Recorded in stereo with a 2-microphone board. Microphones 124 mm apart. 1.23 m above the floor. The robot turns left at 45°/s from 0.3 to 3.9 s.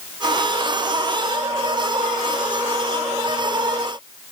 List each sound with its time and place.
Only background noise.